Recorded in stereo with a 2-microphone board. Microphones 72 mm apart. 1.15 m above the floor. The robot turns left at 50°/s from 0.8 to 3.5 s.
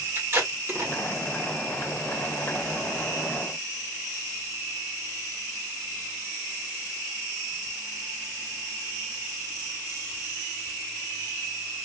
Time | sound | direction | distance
0.1 | tape being pulled | 35° right (ahead or behind) | 2 m